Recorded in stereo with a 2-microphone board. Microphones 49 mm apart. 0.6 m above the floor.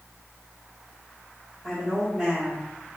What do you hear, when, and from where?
1.6 s a woman speaking: centre (ahead or behind), 1.5 m